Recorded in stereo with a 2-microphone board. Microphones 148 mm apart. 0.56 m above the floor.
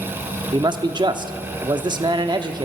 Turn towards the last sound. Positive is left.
turn(degrees=-35)  # may be behind; listen again after turning